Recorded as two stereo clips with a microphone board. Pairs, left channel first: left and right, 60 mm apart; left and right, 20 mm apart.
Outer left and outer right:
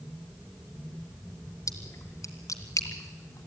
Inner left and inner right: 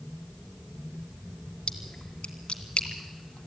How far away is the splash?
About 2.5 m.